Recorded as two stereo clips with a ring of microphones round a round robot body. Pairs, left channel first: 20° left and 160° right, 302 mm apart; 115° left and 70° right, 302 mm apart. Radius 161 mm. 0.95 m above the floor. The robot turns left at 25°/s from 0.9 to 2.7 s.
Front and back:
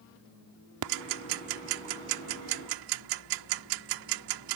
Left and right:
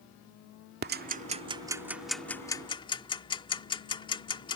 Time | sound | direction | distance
0.8 | ticking | 125° right | ?